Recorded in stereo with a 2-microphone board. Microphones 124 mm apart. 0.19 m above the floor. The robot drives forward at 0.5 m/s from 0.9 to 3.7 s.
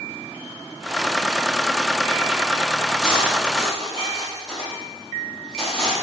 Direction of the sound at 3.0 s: Centre (ahead or behind).